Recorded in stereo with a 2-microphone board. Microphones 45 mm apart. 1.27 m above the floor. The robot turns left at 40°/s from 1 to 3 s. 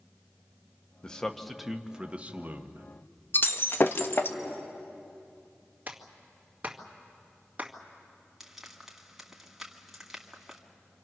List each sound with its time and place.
1.0 s a man speaking: 20° left, 1.2 m; by 2.9 s 55° right, 1.2 m
3.3 s breaking glass: 50° left (ahead or behind), 0.9 m
5.9 s a clap: 35° right (ahead or behind), 2 m
8.4 s frying: 5° right (ahead or behind), 2 m